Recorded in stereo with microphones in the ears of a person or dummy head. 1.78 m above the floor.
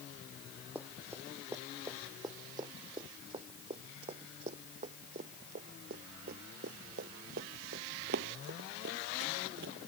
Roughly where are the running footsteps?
Centre.